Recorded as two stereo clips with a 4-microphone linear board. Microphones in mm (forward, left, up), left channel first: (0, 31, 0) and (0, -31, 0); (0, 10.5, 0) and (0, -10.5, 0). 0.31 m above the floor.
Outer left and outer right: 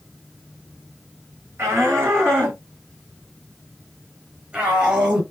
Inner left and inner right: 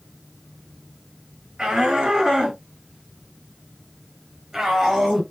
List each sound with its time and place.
1.6 s a shout: 45° right (ahead or behind), 7.5 m; by 5.2 s 20° right (ahead or behind), 7 m